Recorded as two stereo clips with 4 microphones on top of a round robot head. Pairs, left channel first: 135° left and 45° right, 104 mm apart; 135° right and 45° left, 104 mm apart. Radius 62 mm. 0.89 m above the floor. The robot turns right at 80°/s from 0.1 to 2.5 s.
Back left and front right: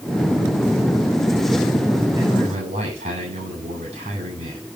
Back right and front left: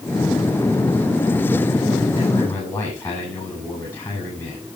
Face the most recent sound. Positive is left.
turn(degrees=-65)